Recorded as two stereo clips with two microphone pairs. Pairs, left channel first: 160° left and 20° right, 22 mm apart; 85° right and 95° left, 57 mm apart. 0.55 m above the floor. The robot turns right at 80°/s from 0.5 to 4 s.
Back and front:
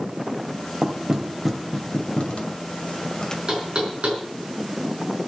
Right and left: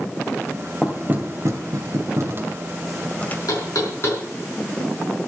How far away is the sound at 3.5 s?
About 5 m.